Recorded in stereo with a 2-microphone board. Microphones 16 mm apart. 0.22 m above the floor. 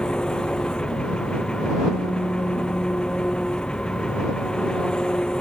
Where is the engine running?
60° left (ahead or behind).